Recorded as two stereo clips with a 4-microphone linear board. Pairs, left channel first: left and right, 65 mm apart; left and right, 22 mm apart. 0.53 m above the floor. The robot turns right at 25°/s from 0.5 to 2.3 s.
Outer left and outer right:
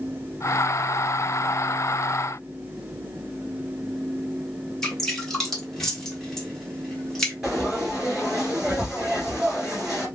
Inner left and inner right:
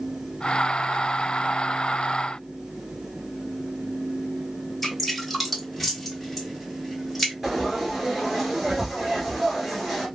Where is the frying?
10° right (ahead or behind), 1.9 m.